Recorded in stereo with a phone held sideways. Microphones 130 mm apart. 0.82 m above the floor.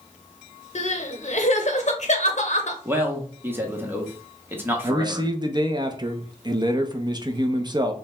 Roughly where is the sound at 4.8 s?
Right.